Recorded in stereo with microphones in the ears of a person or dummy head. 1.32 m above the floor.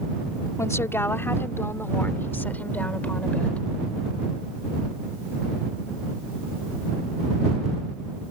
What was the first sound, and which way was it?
A woman speaking, 10° left (ahead or behind).